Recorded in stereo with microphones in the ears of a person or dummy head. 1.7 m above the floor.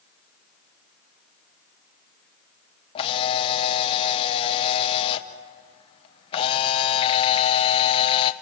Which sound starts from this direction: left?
A camera shutter, at 3.0 s.